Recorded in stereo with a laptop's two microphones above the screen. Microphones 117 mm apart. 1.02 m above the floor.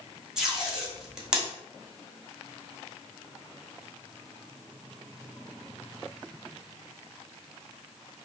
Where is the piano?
No piano in this recording.